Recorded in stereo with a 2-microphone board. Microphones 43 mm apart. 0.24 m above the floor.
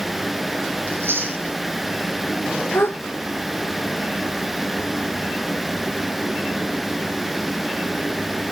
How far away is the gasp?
About 4 m.